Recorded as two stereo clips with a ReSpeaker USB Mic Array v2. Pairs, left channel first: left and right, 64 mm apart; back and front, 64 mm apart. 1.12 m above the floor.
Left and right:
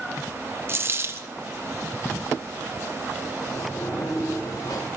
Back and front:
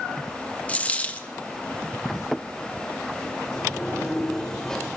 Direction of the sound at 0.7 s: 125° right.